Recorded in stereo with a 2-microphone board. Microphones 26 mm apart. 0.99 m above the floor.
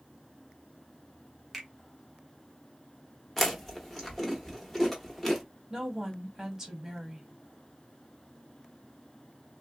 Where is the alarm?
No alarm in this recording.